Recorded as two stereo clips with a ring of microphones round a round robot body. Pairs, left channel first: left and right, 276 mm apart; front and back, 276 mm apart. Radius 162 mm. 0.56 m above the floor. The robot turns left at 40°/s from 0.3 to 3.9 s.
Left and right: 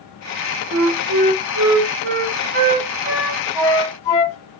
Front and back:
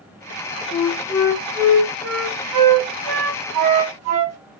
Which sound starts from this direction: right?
A flute, at 0.7 s.